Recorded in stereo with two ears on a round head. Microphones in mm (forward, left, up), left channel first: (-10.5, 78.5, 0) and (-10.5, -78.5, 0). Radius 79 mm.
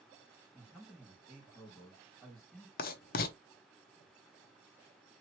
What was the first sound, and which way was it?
A man speaking, centre (ahead or behind).